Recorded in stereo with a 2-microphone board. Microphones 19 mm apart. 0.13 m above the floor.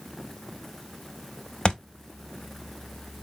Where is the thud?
40° left (ahead or behind), 0.7 m.